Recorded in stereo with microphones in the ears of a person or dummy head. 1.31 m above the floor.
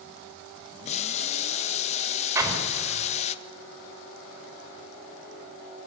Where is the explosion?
10° right (ahead or behind), 5 m.